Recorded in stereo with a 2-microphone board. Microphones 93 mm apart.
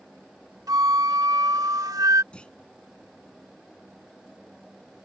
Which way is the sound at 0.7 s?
40° right (ahead or behind).